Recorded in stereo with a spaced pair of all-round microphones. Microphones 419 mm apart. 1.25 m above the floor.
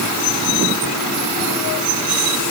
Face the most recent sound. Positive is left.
No sound to turn to.